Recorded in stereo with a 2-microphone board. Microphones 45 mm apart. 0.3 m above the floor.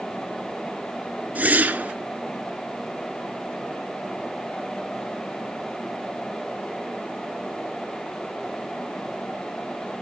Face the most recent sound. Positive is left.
turn(degrees=-35)  # may be behind; listen again after turning